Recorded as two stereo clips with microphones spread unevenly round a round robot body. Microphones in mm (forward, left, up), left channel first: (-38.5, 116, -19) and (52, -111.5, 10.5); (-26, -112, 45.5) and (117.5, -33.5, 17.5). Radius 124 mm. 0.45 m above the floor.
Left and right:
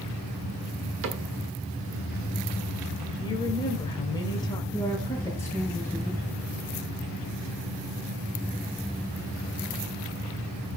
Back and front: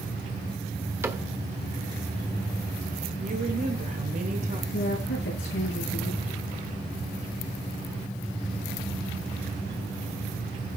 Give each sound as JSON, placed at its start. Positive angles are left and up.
{"t": 1.0, "sound": "a cupboard door", "azimuth_deg": -35, "distance_m": 1.9}
{"t": 3.2, "sound": "a woman speaking", "azimuth_deg": 45, "distance_m": 2.0}
{"t": 4.7, "sound": "a woman speaking", "azimuth_deg": -170, "distance_m": 7.5}